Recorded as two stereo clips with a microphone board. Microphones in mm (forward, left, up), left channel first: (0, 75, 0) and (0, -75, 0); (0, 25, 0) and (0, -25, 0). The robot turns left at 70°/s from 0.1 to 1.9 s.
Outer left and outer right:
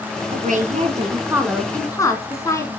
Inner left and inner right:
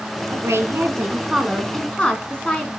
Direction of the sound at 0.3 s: 90° right.